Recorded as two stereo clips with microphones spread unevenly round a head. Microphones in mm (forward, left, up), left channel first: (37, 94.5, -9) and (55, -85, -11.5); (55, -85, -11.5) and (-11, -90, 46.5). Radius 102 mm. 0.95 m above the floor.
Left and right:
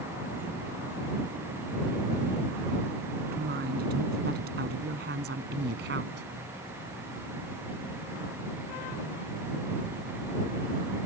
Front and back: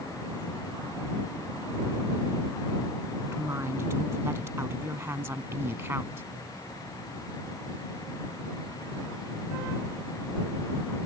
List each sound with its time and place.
3.3 s a woman speaking: 135° right; by 6.2 s 130° right